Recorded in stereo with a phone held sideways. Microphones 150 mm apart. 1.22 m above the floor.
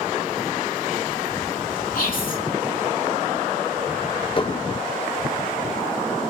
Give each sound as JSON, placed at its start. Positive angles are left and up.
{"t": 1.9, "sound": "whispering", "side_deg": 65, "distance_m": 2.5}
{"t": 4.4, "sound": "dishes clattering", "side_deg": 35, "distance_m": 0.6}